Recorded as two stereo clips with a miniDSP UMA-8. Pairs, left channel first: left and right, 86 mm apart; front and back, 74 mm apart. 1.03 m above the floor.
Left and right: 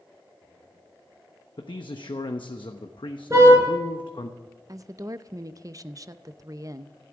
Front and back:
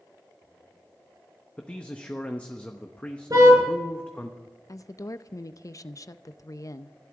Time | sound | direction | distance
1.6 | a man speaking | 70° left | 1.0 m
3.3 | a car horn | 145° right | 6 m
4.7 | a woman speaking | 45° right | 0.6 m